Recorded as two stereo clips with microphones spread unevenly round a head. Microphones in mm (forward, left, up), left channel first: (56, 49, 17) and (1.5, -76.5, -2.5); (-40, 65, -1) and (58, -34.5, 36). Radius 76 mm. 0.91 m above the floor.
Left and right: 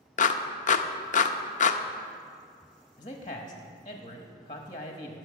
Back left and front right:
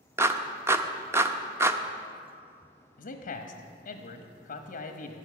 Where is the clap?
30° left, 0.7 m.